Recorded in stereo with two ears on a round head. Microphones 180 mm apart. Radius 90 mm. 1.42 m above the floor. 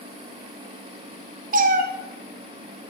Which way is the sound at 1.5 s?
45° right (ahead or behind).